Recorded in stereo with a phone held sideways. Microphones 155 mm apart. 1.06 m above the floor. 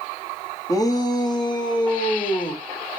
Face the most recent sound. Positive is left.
turn(degrees=30)  # may be behind; listen again after turning